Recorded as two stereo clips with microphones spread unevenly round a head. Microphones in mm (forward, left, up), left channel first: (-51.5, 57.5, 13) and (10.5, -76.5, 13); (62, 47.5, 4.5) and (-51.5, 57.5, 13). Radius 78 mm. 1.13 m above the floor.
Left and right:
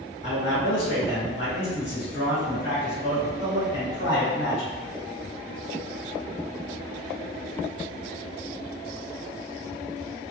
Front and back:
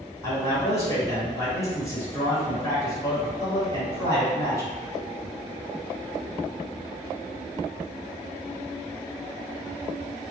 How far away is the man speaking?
About 2.0 m.